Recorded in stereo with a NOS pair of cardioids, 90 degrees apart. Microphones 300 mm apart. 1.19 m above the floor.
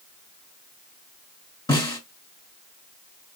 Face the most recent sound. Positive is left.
turn(degrees=10)